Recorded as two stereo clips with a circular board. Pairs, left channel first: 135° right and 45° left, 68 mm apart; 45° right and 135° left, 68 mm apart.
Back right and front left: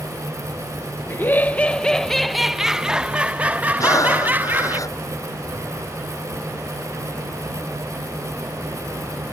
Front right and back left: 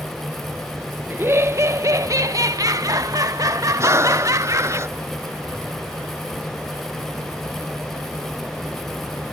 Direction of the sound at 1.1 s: Straight behind.